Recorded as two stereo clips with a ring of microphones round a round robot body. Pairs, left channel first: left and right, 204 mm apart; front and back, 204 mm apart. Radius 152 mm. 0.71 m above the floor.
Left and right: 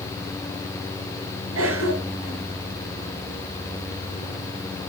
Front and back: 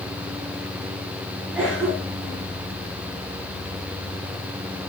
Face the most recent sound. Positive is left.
turn(degrees=-95)